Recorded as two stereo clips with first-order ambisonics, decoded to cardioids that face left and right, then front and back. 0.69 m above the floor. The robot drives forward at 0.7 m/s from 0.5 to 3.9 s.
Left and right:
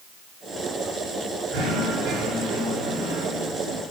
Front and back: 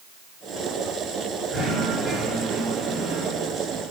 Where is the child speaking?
No child speaking in this recording.